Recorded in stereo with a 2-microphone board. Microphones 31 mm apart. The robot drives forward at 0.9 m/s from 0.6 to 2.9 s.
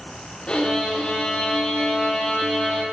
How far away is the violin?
About 9.5 m.